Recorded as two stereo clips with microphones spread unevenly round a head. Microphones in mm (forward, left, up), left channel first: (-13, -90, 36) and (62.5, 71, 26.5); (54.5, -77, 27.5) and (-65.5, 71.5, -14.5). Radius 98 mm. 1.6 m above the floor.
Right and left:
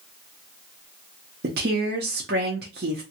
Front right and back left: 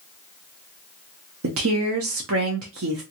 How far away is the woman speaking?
About 0.6 m.